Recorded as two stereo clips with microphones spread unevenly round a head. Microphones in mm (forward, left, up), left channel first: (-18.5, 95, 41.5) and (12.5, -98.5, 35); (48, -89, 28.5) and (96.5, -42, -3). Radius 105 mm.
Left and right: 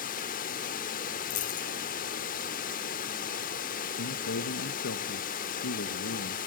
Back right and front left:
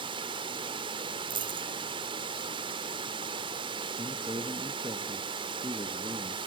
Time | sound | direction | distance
0.0 | running water | 55° left | 1.1 m
1.3 | a dropped coin | 50° left | 1.9 m
4.0 | a man speaking | 85° left | 1.4 m